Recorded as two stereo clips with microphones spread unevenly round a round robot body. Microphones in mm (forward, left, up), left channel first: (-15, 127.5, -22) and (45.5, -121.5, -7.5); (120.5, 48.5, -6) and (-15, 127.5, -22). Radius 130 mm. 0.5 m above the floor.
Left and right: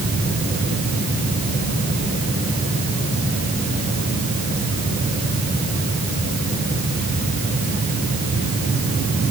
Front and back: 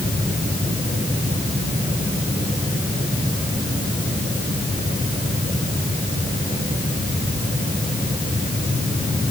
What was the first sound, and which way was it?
Only background noise.